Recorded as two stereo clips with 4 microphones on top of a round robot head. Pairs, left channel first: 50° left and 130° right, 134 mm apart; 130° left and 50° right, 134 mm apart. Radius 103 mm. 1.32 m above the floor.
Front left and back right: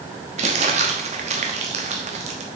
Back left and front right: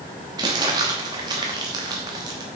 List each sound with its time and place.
0.4 s crumpling: 105° right, 0.9 m